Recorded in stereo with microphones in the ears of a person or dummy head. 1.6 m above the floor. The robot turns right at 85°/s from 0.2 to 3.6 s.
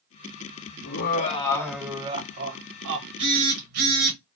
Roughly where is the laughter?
Left.